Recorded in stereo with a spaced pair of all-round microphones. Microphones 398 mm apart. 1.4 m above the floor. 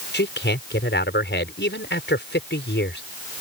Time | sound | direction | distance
0.1 | a man speaking | 25° left (ahead or behind) | ?